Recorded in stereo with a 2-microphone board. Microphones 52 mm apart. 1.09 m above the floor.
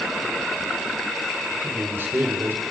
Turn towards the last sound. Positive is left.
turn(degrees=-50)  # may be behind; listen again after turning